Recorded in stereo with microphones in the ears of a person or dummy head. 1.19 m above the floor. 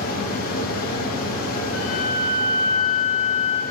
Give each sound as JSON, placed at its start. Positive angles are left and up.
{"t": 0.0, "sound": "a fan", "side_deg": 45, "distance_m": 1.6}
{"t": 1.7, "sound": "a flute", "side_deg": 75, "distance_m": 1.5}